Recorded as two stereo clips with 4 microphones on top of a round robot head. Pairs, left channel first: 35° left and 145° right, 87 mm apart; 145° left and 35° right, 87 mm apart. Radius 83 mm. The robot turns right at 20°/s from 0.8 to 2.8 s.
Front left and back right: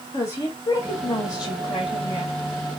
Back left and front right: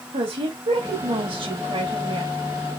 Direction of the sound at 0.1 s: 20° right.